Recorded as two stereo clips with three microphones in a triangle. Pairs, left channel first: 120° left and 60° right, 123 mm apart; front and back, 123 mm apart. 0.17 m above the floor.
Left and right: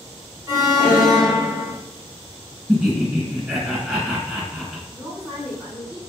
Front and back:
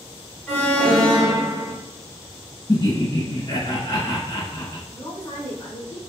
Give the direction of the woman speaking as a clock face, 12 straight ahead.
11 o'clock.